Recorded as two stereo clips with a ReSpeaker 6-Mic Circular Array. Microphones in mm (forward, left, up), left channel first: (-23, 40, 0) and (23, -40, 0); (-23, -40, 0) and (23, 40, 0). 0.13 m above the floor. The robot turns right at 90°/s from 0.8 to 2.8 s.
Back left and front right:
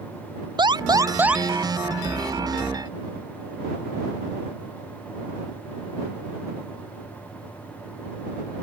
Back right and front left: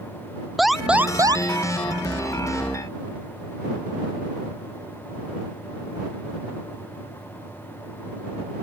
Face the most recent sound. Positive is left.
turn(degrees=150)